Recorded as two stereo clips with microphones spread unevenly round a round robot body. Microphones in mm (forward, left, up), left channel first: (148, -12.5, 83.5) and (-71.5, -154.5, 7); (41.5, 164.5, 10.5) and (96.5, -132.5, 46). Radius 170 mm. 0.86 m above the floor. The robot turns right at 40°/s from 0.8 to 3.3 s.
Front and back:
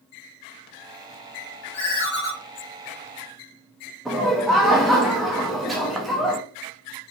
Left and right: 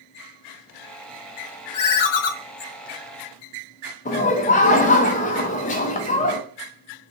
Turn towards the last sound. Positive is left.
turn(degrees=145)